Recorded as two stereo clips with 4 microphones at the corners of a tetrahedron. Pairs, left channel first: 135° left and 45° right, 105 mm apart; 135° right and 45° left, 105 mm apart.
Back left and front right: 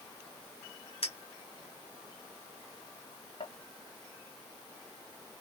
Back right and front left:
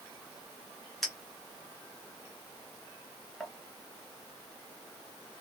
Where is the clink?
140° left, 0.8 m.